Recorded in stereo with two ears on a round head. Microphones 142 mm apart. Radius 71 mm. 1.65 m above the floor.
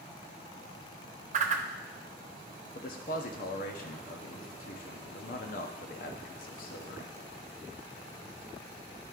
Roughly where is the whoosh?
Right.